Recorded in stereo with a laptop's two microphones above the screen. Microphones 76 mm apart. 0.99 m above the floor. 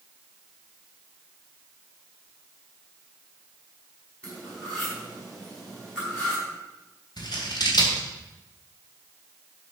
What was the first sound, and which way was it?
Cutlery clinking, 15° left (ahead or behind).